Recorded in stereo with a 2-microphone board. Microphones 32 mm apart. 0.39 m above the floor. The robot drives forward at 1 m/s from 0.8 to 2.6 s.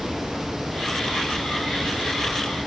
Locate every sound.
Only background noise.